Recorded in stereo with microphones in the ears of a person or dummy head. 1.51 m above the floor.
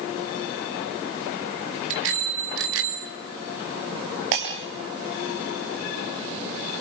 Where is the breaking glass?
65° right (ahead or behind), 4 m.